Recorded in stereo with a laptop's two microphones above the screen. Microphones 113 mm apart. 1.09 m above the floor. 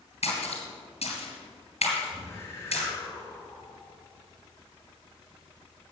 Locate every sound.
0.2 s a splash: 75° left (ahead or behind), 3 m
2.1 s a whoosh: 25° left (ahead or behind), 2.0 m